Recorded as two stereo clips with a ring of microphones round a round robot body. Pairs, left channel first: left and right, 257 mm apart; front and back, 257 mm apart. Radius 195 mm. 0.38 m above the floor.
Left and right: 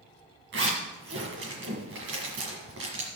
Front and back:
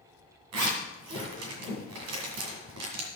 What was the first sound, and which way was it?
A zipper, 145° right.